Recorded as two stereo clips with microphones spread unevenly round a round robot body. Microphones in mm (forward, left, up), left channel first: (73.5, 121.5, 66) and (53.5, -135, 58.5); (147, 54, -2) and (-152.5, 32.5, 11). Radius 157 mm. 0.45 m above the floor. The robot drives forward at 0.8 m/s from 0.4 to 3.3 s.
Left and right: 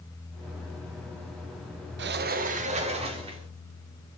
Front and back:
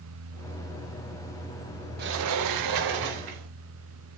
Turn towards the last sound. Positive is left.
turn(degrees=-165)